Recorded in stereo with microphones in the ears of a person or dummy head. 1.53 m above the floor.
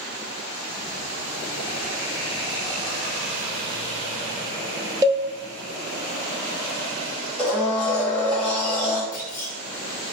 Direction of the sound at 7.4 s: 5° left (ahead or behind).